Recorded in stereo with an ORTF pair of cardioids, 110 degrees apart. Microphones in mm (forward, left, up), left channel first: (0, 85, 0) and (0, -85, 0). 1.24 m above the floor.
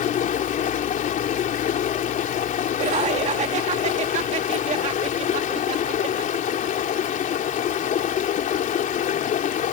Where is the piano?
I don't hear a piano.